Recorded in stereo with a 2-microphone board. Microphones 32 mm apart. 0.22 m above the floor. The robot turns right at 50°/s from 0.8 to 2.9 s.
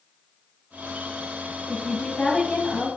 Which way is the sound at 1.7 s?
10° left (ahead or behind).